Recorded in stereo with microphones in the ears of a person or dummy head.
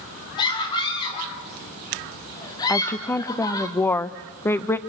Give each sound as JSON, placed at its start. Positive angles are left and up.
{"t": 0.4, "sound": "a scream", "side_deg": 25, "distance_m": 5.5}
{"t": 2.7, "sound": "a woman speaking", "side_deg": 10, "distance_m": 0.8}